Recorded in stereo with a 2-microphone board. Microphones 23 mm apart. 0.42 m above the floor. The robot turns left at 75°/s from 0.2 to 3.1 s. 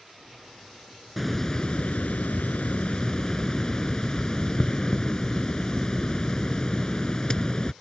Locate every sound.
1.2 s a hiss: straight behind; by 7.7 s 35° left